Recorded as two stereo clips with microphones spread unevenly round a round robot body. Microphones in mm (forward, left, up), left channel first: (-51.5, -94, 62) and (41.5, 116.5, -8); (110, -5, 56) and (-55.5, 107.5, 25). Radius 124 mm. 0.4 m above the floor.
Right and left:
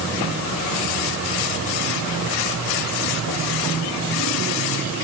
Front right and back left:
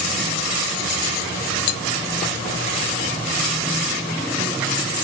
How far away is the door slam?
No door slam in this recording.